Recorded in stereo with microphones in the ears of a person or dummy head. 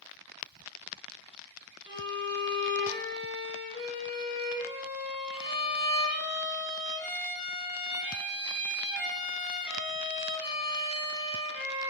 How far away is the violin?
About 1.7 m.